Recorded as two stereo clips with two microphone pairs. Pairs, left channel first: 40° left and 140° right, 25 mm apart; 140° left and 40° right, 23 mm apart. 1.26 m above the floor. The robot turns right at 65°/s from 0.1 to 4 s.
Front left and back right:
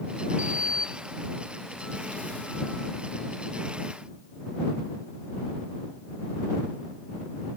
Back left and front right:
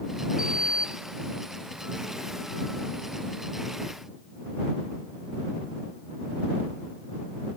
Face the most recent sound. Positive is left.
turn(degrees=130)